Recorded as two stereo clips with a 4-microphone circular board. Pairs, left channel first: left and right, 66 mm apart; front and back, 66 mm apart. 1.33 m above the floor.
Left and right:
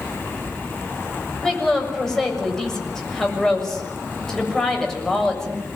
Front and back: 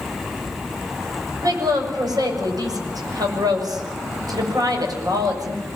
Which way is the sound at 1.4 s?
170° left.